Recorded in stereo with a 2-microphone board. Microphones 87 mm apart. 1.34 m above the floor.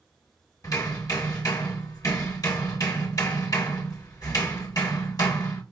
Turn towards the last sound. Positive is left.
turn(degrees=40)  # may be behind; listen again after turning